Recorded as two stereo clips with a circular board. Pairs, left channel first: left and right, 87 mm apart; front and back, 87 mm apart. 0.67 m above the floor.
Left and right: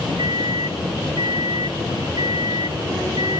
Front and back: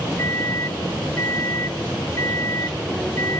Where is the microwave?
55° right.